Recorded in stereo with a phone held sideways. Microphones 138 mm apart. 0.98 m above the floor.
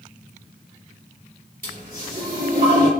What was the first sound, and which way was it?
A toilet flushing, 75° right (ahead or behind).